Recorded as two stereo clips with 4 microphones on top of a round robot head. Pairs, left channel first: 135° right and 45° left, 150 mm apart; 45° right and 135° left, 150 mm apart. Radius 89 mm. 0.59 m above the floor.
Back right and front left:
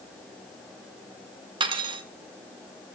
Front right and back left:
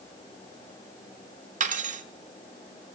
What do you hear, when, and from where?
1.6 s cutlery clinking: 100° left, 1.2 m